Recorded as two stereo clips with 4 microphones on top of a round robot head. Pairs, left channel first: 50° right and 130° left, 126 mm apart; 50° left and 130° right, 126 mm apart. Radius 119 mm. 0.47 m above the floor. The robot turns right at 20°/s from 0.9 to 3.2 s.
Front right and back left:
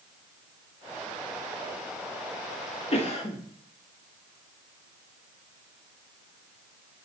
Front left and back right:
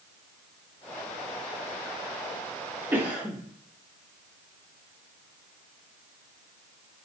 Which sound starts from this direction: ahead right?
A cough, at 2.9 s.